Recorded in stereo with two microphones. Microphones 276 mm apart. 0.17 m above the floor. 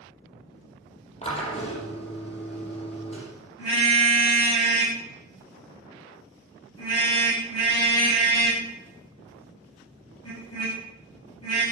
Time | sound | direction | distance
1.2 | a drill | 20° left (ahead or behind) | 5 m
3.6 | a car horn | 60° left (ahead or behind) | 9 m